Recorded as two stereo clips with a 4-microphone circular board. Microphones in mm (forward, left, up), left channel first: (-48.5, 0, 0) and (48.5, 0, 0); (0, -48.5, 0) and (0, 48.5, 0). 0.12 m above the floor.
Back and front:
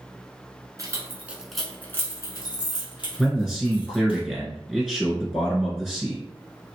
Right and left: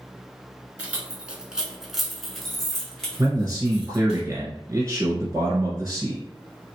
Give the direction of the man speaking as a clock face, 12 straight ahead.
9 o'clock.